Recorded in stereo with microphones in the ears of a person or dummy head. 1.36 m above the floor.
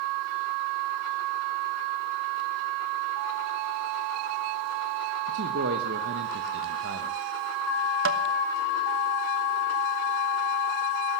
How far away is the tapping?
About 1.0 m.